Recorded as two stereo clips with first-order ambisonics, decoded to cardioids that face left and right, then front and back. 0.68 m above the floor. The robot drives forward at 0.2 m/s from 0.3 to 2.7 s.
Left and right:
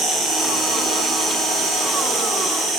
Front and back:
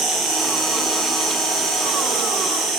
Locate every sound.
0.0 s an insect: 140° right, 4 m; by 2.8 s 145° right, 4.5 m